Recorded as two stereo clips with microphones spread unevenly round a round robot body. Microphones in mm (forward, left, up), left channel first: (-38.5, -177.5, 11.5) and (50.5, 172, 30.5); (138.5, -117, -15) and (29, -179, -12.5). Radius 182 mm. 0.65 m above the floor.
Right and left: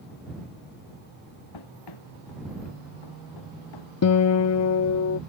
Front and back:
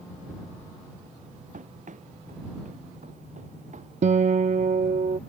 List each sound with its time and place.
1.5 s running footsteps: 135° right; by 3.9 s 130° right
4.0 s a guitar: 145° right